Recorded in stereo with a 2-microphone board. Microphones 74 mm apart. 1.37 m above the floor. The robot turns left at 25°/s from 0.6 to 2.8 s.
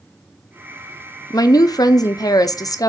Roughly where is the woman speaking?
Left.